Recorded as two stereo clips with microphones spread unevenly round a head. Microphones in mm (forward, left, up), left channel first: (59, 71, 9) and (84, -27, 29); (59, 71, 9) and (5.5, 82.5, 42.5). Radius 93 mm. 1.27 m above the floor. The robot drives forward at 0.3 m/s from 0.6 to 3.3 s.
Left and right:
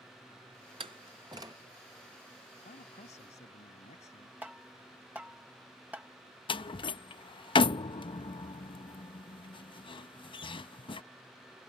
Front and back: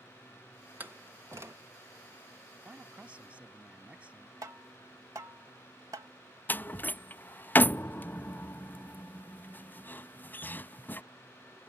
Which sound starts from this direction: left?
A man speaking, at 2.6 s.